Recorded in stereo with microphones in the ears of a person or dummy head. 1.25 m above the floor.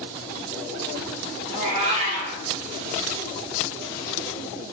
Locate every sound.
1.5 s a cat meowing: 35° right (ahead or behind), 1.8 m